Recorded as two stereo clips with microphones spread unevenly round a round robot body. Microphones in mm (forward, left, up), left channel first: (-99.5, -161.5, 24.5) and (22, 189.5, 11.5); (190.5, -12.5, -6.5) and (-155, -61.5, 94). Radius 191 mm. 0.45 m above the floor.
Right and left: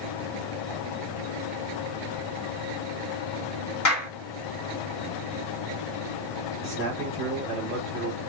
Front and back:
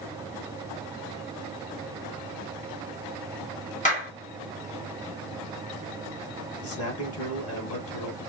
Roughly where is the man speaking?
Ahead right.